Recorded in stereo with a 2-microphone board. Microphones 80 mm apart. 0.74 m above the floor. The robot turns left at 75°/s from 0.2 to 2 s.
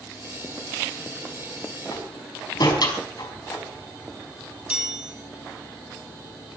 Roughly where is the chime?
Centre.